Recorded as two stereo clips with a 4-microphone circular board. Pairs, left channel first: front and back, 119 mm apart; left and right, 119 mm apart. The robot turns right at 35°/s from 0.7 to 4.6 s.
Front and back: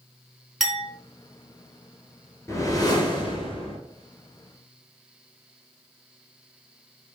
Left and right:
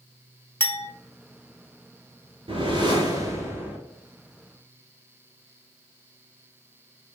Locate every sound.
0.6 s a clink: 85° left, 0.7 m; by 0.9 s 90° left, 0.7 m
2.5 s a whoosh: 60° right, 0.7 m; by 3.8 s 15° right, 0.7 m